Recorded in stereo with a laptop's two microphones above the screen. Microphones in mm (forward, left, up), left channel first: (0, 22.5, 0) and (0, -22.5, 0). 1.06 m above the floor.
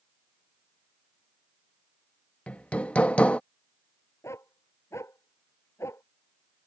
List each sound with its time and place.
2.5 s hammering: 30° left (ahead or behind)
4.2 s a dog barking: 85° left